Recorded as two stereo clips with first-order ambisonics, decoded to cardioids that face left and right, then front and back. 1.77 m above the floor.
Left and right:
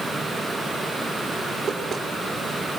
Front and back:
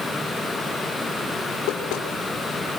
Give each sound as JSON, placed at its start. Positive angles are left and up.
{"t": 1.7, "sound": "knocking", "azimuth_deg": -15, "distance_m": 3.0}